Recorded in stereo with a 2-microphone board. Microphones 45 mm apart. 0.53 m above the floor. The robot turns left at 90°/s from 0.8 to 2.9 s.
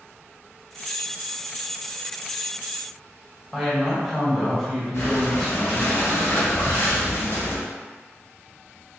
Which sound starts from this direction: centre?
A woman speaking, at 3.5 s.